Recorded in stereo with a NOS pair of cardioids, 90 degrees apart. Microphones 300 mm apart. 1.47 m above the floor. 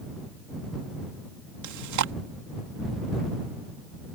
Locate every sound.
1.6 s chewing: 70° right